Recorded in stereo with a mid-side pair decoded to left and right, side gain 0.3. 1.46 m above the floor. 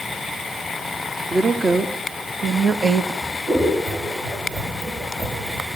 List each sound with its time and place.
1.3 s a woman speaking: 40° right, 2.0 m; by 3.1 s 65° right, 1.3 m
3.2 s scissors: 65° right, 9 m